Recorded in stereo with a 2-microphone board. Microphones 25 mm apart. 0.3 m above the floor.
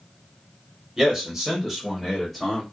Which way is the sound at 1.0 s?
20° right (ahead or behind).